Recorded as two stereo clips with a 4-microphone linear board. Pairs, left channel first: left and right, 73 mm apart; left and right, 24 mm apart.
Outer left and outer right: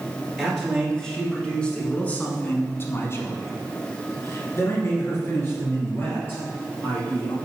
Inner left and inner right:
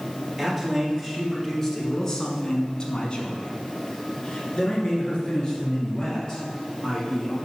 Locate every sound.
0.4 s a man speaking: centre (ahead or behind), 2 m; by 7.3 s 30° left (ahead or behind), 3.5 m